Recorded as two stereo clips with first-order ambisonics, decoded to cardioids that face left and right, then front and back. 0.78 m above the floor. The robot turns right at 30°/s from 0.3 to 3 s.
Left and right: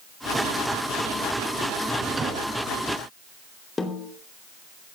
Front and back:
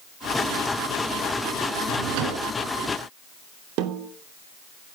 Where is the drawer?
175° right, 3 m; by 2.5 s 155° right, 3 m.